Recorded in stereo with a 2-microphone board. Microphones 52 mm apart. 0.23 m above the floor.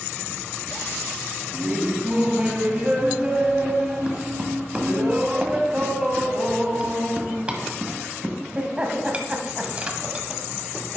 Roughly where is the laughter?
Right.